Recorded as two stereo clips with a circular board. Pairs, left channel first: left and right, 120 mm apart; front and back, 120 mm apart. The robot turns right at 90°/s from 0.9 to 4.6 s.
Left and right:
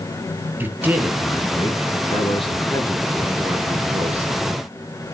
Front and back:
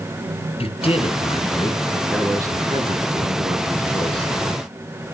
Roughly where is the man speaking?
Ahead.